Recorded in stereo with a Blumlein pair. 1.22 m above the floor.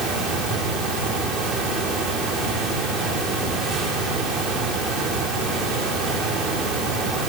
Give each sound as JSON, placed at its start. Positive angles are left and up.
{"t": 0.0, "sound": "a fan", "azimuth_deg": -20, "distance_m": 3.5}